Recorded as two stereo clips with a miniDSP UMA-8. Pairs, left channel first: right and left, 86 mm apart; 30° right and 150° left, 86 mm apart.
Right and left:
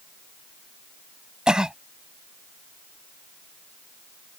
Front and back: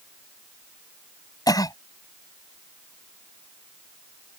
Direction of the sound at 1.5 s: 10° left.